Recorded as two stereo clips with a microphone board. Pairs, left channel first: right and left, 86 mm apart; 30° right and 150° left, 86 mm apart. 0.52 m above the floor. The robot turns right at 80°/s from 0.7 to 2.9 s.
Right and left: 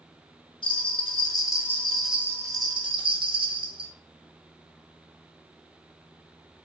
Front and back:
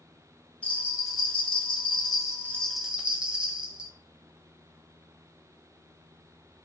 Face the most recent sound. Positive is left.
turn(degrees=70)